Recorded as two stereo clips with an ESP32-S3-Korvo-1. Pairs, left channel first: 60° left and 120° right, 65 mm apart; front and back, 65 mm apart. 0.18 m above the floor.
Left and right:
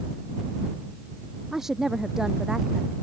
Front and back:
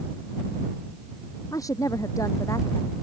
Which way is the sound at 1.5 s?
35° right.